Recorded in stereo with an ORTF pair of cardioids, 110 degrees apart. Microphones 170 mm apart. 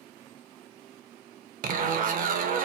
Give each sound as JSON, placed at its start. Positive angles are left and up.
{"t": 1.6, "sound": "a zipper", "azimuth_deg": -55, "distance_m": 0.7}